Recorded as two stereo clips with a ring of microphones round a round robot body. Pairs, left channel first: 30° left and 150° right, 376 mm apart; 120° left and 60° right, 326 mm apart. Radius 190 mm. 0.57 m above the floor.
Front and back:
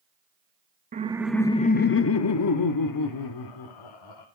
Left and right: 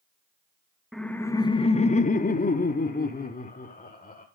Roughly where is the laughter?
Behind right.